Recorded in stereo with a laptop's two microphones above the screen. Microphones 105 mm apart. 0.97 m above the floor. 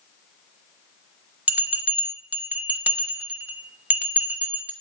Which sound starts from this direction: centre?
A bell, at 1.5 s.